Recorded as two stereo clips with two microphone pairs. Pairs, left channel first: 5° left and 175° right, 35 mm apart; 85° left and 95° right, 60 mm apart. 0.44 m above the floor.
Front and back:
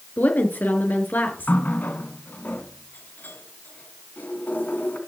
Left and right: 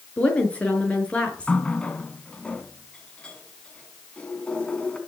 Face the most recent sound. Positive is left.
turn(degrees=10)